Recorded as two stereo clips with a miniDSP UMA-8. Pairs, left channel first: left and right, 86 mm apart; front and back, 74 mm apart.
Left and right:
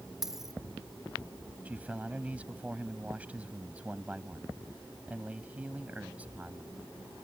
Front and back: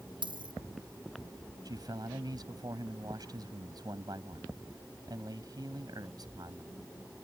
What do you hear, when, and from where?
0.2 s a dropped coin: 175° right
1.6 s a man speaking: 160° right